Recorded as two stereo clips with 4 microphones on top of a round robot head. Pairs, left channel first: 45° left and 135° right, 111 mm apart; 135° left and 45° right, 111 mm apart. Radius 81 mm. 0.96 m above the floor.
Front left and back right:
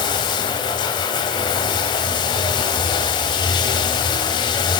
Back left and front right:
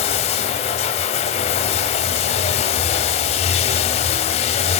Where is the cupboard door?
I don't hear a cupboard door.